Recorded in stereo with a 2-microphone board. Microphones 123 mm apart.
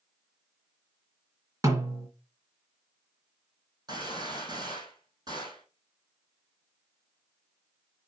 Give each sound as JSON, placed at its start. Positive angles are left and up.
{"t": 1.6, "sound": "a snare drum", "side_deg": -25, "distance_m": 2.5}
{"t": 3.9, "sound": "a gunshot", "side_deg": -35, "distance_m": 4.5}